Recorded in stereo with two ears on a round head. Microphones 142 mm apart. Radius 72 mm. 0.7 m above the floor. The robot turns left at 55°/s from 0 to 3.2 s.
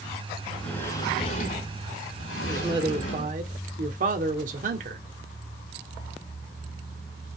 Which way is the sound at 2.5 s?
15° right.